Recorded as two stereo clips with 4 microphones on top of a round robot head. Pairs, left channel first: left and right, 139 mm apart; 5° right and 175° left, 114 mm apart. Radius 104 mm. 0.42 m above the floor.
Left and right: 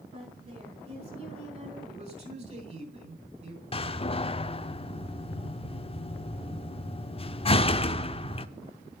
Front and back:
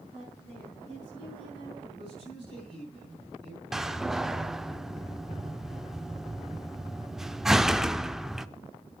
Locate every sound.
0.1 s a woman speaking: 130° right, 5.5 m
1.9 s a man speaking: 130° right, 4.5 m
3.7 s a door slam: 90° left, 0.7 m